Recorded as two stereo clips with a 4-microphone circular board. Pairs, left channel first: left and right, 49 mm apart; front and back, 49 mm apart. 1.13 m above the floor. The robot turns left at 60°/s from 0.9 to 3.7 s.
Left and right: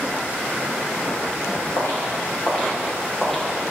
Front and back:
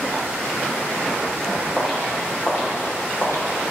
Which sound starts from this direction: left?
Footsteps, at 1.8 s.